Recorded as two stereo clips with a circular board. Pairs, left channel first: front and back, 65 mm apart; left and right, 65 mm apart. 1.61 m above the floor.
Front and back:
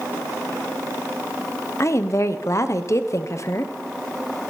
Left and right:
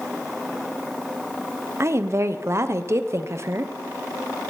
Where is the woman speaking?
45° right, 0.9 m.